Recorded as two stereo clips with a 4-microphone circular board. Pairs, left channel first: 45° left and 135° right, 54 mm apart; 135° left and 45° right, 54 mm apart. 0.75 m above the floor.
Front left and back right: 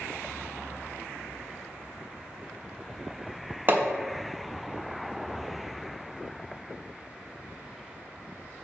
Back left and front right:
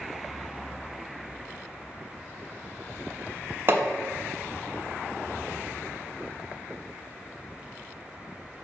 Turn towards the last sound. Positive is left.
turn(degrees=-85)